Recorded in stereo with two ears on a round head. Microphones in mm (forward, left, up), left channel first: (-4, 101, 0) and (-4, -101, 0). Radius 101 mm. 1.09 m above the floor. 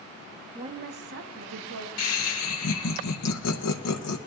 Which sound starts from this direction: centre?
A woman speaking, at 0.6 s.